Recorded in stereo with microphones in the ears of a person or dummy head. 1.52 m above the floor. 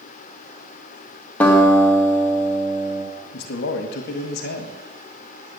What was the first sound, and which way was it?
A guitar, 10° left (ahead or behind).